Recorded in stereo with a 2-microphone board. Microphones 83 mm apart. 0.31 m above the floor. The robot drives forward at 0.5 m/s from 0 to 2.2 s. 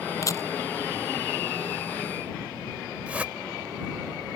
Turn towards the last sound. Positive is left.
turn(degrees=-15)  # may be behind; listen again after turning